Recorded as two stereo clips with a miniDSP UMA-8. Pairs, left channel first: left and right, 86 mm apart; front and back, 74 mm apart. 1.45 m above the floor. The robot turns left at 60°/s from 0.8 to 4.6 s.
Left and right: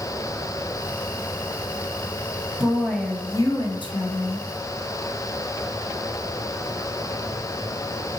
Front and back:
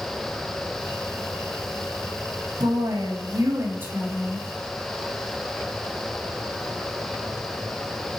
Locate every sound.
2.6 s a woman speaking: 165° right, 0.9 m; by 4.5 s 80° left, 0.9 m